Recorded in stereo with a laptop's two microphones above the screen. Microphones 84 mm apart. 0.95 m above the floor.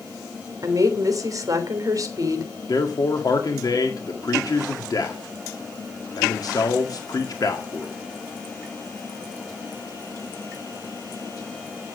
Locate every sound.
0.6 s a woman speaking: 50° right (ahead or behind), 3 m
2.7 s a man speaking: 55° left (ahead or behind), 1.7 m